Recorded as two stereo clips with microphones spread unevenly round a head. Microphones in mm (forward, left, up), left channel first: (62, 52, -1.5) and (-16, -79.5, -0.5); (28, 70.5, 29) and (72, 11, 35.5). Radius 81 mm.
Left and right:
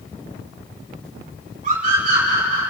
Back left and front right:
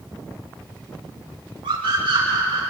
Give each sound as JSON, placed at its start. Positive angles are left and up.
{"t": 1.6, "sound": "a scream", "azimuth_deg": -75, "distance_m": 6.0}